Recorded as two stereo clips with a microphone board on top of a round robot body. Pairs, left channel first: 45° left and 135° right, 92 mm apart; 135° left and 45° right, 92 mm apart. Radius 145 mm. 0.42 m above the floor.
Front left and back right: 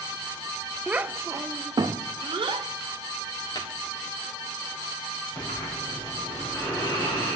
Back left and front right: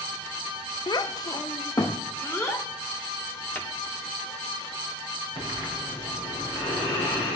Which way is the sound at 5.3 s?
105° left.